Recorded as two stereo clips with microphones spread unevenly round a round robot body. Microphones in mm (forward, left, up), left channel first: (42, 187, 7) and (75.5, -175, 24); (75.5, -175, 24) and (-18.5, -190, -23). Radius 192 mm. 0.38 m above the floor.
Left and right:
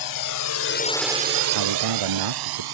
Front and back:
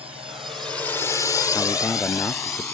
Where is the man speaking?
65° right.